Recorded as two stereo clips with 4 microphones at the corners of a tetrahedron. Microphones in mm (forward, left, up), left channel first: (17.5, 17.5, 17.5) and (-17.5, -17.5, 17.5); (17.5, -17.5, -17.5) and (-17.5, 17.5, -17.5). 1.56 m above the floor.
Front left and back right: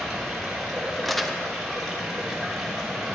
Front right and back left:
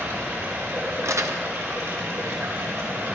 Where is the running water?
135° left, 3.5 m.